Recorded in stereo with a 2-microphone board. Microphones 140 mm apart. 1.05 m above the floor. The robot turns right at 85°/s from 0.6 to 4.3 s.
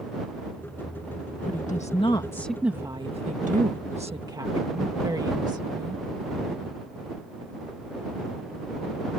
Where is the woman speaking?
85° left; by 6.0 s 30° right.